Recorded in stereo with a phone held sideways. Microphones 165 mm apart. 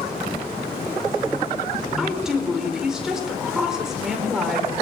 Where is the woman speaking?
5° right (ahead or behind), 4.5 m.